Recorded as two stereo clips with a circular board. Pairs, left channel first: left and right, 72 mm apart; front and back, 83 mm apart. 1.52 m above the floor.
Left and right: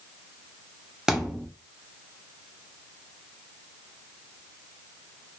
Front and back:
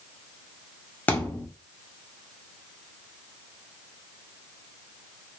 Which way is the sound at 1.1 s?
20° right.